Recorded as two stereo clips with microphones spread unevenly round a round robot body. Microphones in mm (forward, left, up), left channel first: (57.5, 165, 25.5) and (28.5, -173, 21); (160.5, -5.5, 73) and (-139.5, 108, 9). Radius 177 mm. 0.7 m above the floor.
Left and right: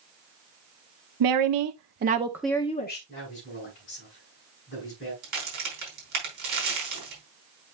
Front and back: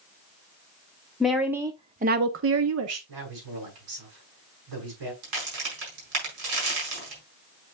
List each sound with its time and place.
1.2 s a woman speaking: 115° right, 1.1 m; by 3.0 s 140° left, 0.9 m
3.1 s a man speaking: 155° left, 5.5 m
5.2 s a crack: 160° right, 4.5 m